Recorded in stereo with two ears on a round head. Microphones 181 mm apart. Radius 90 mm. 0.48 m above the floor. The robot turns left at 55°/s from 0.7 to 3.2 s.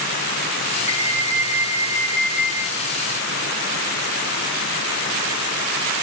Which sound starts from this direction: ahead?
An alarm, at 0.9 s.